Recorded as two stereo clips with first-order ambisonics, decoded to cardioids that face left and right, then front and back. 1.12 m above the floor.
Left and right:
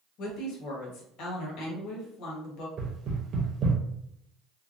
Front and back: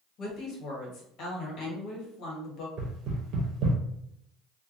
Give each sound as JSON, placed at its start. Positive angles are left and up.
{"t": 0.2, "sound": "a woman speaking", "azimuth_deg": 50, "distance_m": 1.1}
{"t": 2.8, "sound": "knocking", "azimuth_deg": -140, "distance_m": 0.7}